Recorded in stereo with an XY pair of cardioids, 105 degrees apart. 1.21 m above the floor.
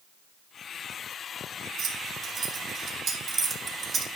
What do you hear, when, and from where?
1.8 s keys jangling: 60° right, 2.5 m; by 4.1 s 35° right, 1.6 m